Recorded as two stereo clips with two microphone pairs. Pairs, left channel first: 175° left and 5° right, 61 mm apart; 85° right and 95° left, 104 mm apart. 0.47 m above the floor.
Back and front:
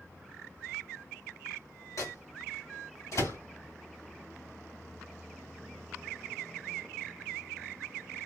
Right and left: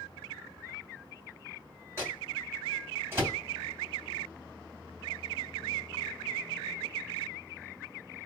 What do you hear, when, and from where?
2.0 s a microwave: 160° left, 3 m